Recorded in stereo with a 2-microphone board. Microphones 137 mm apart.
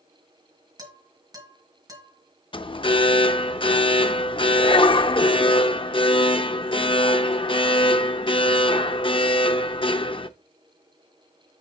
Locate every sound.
0.8 s dishes clattering: 30° right (ahead or behind), 2.5 m
2.5 s an alarm: 40° left (ahead or behind), 0.5 m